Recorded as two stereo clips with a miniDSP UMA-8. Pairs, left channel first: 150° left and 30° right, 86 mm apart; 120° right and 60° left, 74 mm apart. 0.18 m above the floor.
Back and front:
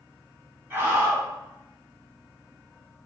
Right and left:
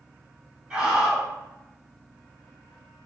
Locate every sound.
0.7 s a scream: 5° right, 1.2 m